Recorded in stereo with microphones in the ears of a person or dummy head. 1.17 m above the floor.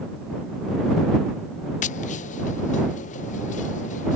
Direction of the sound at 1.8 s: 40° left (ahead or behind).